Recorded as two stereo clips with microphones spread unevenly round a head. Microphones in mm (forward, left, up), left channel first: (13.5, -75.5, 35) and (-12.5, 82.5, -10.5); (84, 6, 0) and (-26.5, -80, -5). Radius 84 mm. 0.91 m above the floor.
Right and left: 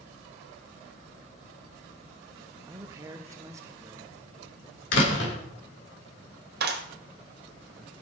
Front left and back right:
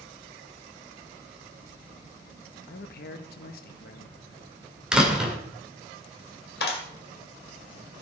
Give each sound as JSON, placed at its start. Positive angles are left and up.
{"t": 2.7, "sound": "a man speaking", "azimuth_deg": 35, "distance_m": 0.8}
{"t": 4.9, "sound": "a door slam", "azimuth_deg": -60, "distance_m": 2.5}
{"t": 6.6, "sound": "a clap", "azimuth_deg": 75, "distance_m": 1.9}